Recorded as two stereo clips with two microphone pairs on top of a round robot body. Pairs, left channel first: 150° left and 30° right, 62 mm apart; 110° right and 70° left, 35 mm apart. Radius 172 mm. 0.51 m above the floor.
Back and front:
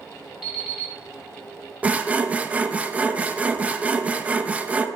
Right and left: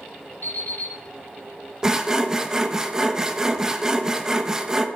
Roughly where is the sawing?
Ahead.